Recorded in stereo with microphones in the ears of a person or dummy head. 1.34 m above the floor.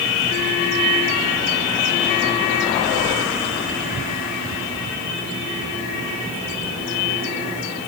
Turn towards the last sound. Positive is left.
No sound to turn to.